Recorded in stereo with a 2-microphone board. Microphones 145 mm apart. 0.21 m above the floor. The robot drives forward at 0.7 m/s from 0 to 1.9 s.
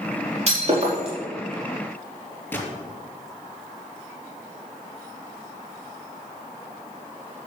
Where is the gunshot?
15° left (ahead or behind), 3.5 m.